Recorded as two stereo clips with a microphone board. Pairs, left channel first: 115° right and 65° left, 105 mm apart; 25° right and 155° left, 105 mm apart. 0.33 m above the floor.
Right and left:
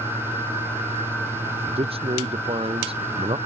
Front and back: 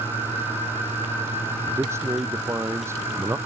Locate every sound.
1.7 s a man speaking: 90° left